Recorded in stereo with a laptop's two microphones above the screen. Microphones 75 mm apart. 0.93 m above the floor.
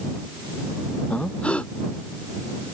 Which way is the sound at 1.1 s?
15° left (ahead or behind).